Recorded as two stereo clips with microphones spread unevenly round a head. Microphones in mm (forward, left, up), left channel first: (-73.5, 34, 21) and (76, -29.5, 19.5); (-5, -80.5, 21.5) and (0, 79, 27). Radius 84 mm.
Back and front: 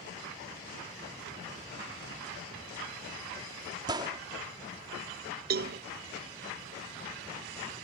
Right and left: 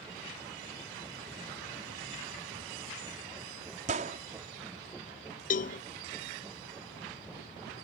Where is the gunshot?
40° left.